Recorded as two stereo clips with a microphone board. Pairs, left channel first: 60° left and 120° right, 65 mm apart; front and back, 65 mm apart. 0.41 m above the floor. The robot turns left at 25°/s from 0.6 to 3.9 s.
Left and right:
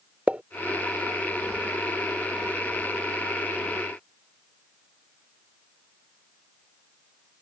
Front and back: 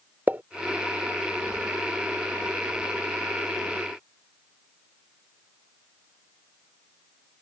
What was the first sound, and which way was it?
A pop, 160° right.